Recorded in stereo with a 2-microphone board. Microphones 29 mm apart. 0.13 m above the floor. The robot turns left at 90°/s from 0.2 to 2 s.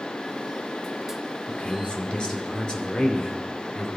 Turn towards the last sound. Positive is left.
turn(degrees=55)